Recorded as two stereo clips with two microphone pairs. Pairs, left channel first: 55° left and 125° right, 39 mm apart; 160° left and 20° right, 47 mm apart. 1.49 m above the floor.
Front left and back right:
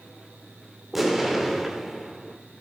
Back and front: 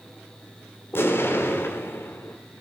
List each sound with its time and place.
0.9 s an explosion: 150° left, 1.7 m